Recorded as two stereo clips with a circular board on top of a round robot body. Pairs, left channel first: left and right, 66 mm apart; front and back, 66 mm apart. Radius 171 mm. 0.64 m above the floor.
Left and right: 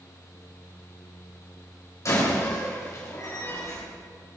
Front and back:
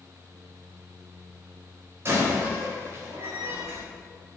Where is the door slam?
130° left, 3 m.